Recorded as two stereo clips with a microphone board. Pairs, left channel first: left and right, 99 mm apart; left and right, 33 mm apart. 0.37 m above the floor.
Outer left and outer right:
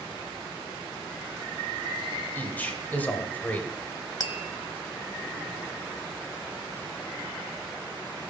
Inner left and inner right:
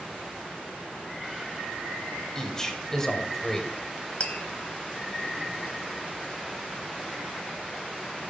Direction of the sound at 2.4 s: 20° left (ahead or behind).